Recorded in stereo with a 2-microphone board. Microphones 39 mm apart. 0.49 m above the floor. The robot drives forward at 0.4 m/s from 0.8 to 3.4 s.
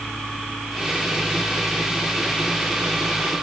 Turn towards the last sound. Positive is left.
No sound to turn to.